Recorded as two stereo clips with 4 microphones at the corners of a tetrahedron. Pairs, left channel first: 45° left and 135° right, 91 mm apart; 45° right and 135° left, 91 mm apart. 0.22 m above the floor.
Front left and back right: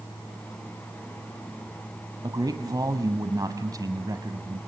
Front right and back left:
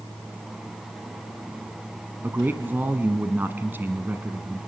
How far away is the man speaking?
About 1.5 m.